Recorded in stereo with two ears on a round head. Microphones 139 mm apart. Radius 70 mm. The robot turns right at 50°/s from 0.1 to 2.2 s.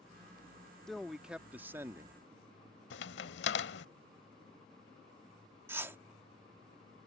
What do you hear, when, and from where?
0.9 s a man speaking: 5° left (ahead or behind); by 2.2 s 20° right (ahead or behind)
2.9 s a crack: 85° left
5.7 s a whoosh: 15° right (ahead or behind)